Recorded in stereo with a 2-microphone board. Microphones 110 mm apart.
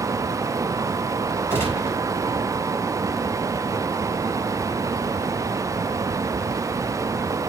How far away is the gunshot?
About 4.5 m.